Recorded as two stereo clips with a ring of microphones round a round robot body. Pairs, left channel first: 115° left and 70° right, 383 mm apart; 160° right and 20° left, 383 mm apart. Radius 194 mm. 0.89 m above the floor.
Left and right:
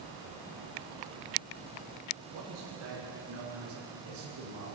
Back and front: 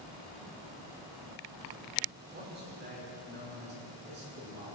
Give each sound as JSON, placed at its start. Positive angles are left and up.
{"t": 2.3, "sound": "a man speaking", "azimuth_deg": -45, "distance_m": 9.0}